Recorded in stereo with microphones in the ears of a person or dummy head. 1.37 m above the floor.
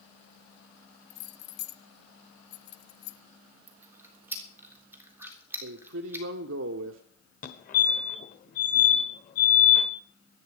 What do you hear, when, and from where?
1.1 s keys jangling: 65° left (ahead or behind), 0.8 m
3.7 s chewing: 15° right (ahead or behind), 3 m
5.6 s a man speaking: 70° right (ahead or behind), 0.9 m
7.4 s a fire alarm: 40° left (ahead or behind), 1.3 m